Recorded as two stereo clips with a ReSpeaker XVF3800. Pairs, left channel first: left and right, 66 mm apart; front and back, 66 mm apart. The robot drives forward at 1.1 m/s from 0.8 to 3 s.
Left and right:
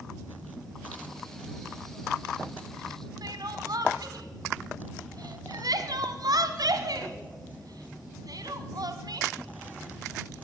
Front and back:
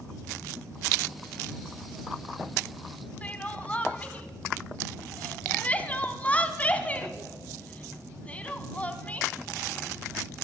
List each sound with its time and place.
3.2 s crying: 70° right, 1.1 m